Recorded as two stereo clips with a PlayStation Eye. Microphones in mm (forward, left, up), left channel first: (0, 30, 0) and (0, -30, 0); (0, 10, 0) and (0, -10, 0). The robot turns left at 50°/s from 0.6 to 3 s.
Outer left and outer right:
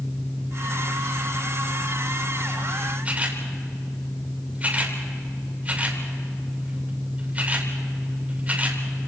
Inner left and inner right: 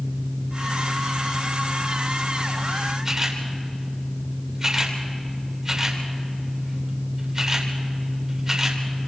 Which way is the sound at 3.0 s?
25° right (ahead or behind).